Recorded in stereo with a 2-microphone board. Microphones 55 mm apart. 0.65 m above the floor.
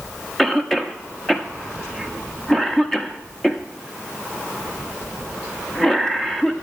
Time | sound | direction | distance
0.4 | a cough | 5° left (ahead or behind) | 0.8 m